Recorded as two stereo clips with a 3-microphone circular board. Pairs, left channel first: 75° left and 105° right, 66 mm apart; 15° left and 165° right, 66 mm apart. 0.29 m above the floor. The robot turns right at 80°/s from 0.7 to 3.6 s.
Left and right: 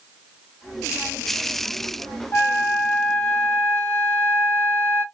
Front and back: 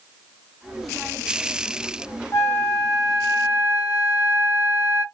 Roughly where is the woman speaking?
I don't hear a woman speaking.